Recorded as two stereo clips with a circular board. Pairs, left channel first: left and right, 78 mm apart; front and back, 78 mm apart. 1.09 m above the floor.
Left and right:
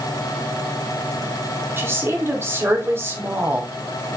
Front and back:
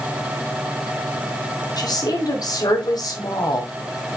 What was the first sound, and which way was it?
A woman speaking, 30° right.